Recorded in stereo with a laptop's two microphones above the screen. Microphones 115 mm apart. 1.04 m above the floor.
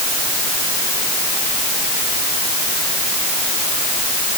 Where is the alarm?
I don't hear an alarm.